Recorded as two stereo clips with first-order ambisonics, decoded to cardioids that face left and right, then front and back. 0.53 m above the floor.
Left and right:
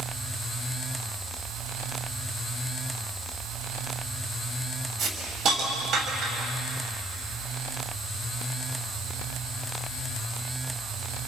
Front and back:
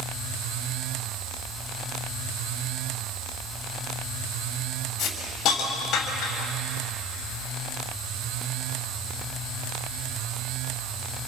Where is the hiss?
45° right, 3.5 m.